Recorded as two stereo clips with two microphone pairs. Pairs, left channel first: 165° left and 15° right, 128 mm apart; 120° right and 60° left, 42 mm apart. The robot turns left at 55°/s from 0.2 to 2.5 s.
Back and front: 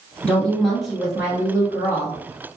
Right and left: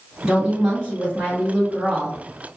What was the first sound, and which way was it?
A woman speaking, 115° left.